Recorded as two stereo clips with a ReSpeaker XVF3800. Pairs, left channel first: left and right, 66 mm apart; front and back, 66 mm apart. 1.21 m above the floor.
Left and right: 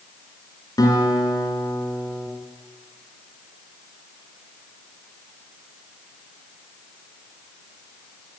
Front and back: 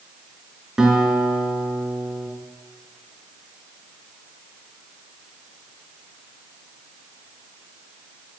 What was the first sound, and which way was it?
A guitar, 100° left.